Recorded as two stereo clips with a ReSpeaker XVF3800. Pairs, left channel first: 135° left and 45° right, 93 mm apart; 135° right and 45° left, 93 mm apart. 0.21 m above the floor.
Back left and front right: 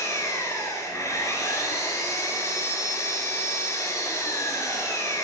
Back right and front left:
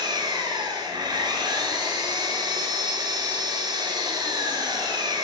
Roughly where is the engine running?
Left.